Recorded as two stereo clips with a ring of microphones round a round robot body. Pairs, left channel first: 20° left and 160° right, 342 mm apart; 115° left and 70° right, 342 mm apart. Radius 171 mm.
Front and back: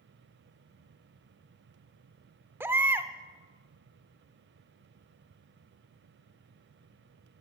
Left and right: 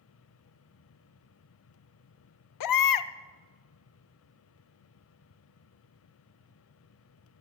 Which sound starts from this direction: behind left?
A baby crying, at 2.6 s.